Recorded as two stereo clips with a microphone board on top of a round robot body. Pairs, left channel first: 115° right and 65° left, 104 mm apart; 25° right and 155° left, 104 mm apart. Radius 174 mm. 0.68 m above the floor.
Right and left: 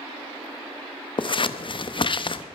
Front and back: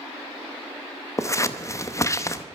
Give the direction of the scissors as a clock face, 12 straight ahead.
3 o'clock.